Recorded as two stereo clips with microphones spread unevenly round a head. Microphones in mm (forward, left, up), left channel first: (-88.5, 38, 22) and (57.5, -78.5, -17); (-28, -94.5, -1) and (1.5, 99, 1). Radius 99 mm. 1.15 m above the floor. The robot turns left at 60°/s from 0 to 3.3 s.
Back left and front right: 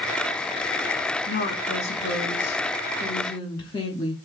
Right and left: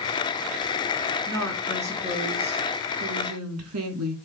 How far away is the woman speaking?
About 3 m.